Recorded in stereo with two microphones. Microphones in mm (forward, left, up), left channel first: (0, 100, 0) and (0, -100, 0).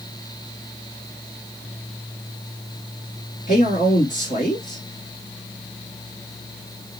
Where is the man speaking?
40° left (ahead or behind), 1.4 m.